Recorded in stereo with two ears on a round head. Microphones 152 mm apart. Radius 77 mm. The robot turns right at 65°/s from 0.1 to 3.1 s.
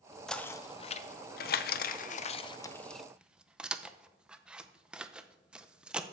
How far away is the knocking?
About 0.5 m.